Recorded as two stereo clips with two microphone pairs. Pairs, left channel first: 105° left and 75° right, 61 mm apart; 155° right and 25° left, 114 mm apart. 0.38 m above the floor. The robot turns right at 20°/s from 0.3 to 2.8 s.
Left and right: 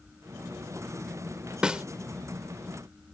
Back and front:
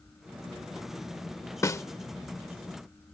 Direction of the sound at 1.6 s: 135° right.